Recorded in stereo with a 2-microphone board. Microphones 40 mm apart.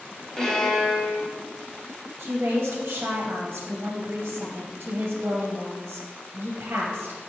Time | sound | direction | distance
0.4 | a violin | 10° left (ahead or behind) | 0.9 m
2.2 | a woman speaking | 65° right (ahead or behind) | 0.5 m